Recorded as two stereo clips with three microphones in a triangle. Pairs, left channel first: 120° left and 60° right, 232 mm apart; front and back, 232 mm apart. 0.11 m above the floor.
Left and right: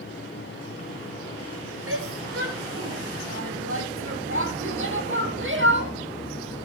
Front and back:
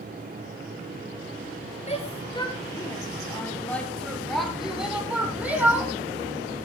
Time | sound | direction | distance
1.9 | a shout | 60° right | 2 m